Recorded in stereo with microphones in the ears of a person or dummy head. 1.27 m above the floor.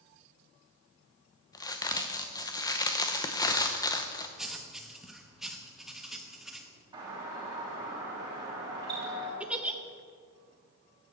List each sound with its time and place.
1.5 s a crack: 20° left (ahead or behind), 0.7 m
4.4 s writing: centre (ahead or behind), 1.0 m
6.9 s a doorbell: 25° right (ahead or behind), 3.5 m
9.4 s a giggle: 5° right (ahead or behind), 0.7 m